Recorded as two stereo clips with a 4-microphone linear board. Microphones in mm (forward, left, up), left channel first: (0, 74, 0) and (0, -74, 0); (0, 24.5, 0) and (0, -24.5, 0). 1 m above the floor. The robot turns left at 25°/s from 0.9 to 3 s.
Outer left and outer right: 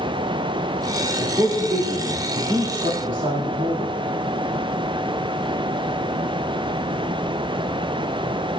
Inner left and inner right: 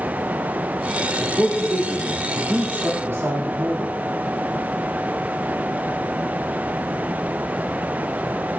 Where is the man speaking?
20° right (ahead or behind), 2 m; by 3.9 s 65° right (ahead or behind), 2 m.